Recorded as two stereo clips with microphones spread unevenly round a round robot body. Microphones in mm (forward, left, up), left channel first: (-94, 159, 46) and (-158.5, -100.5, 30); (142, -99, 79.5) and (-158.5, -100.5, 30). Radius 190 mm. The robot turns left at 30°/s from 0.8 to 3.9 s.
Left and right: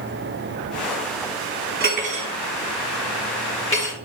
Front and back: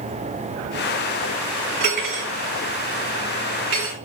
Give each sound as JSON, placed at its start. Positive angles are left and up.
{"t": 1.8, "sound": "cutlery clinking", "azimuth_deg": -160, "distance_m": 4.0}